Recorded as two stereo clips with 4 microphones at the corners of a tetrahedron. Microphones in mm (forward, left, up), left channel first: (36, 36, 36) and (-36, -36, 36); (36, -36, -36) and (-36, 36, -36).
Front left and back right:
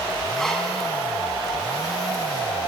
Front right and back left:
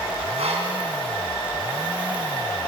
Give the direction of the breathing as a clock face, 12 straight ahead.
8 o'clock.